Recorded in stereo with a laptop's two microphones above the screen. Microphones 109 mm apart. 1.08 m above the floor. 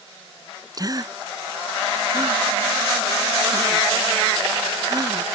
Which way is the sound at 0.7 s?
35° right (ahead or behind).